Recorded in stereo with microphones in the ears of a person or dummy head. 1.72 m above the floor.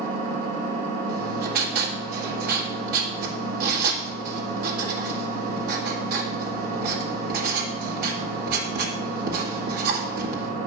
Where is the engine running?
40° right (ahead or behind), 2 m.